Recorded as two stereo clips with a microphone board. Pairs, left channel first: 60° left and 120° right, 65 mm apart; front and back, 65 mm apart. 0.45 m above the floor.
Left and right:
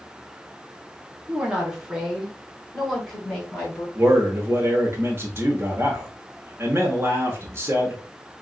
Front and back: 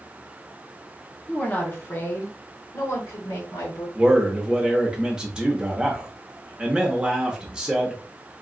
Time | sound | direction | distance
1.3 | a woman speaking | 60° right | 0.9 m
4.0 | a man speaking | 115° right | 1.0 m